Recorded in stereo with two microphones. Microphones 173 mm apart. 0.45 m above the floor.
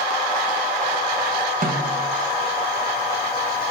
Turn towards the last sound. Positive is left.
turn(degrees=-55)  # may be behind; listen again after turning